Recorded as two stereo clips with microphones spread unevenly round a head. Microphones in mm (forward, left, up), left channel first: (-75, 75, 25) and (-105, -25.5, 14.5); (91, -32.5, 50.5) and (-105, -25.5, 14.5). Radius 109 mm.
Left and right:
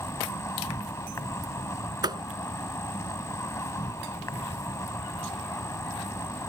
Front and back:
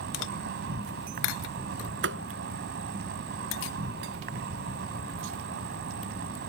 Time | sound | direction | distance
0.0 | an insect | 135° left | ?
2.0 | a thud | 155° right | ?